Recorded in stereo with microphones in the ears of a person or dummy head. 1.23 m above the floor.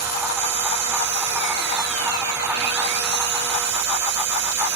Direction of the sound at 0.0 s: 65° right (ahead or behind).